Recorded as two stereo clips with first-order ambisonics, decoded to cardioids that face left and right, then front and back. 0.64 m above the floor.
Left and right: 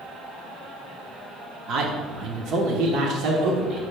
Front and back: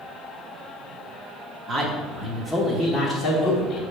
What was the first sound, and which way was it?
A man speaking, 120° right.